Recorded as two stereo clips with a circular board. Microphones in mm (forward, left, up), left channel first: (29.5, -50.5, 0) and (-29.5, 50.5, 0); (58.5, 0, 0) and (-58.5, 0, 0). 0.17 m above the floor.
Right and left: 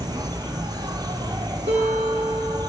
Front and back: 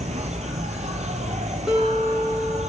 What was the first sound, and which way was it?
An insect, 175° left.